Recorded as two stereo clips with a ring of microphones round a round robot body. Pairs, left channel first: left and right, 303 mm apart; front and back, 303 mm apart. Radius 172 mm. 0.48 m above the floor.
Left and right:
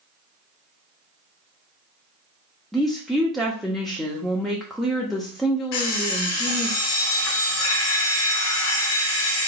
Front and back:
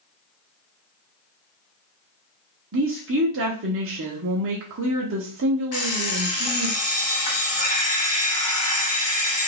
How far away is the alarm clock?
About 1.7 m.